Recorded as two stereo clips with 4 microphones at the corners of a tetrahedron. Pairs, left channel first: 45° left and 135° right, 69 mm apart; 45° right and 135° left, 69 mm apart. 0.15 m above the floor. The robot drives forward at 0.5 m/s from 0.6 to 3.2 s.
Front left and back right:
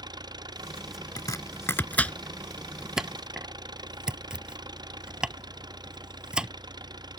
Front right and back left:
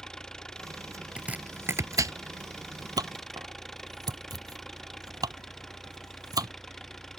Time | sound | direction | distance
0.0 | an engine running | 125° right | ?
1.2 | chopping | 65° left | ?